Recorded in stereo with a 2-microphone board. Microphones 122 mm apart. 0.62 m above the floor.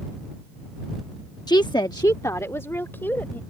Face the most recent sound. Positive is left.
turn(degrees=15)  # may be behind; listen again after turning